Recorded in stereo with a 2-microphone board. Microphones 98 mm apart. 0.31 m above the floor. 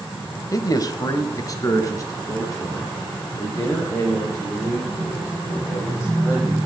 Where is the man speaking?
35° left (ahead or behind), 1.0 m; by 6.6 s 30° left (ahead or behind), 9.5 m.